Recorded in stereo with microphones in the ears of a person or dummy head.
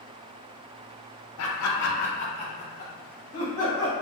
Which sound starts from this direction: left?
Laughter, at 1.4 s.